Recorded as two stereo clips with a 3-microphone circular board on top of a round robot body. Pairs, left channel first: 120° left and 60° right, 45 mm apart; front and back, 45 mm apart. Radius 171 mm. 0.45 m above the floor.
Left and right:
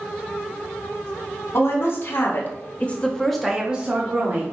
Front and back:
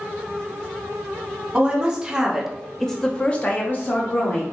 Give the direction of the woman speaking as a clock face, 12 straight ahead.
8 o'clock.